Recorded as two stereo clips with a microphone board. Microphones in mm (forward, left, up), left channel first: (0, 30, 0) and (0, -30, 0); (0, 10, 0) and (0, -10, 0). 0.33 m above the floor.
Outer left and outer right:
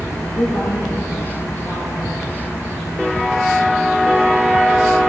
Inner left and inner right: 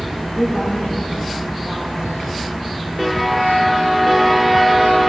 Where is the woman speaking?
50° left (ahead or behind), 7 m; by 2.3 s 55° left (ahead or behind), 8.5 m.